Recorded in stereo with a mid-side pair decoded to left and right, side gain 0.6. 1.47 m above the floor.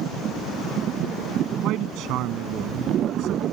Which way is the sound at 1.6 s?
65° right.